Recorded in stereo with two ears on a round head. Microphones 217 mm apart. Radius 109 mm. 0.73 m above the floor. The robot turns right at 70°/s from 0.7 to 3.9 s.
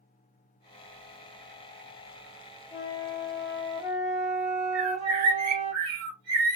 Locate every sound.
2.7 s a flute: 25° left (ahead or behind), 1.2 m; by 5.7 s centre (ahead or behind), 1.2 m
4.7 s a bird: 75° right (ahead or behind), 1.2 m